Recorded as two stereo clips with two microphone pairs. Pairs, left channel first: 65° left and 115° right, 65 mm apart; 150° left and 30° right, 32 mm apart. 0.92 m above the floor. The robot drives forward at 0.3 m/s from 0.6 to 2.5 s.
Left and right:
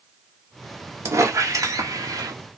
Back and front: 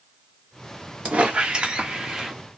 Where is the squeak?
75° right, 0.8 m; by 2.4 s 105° right, 0.8 m.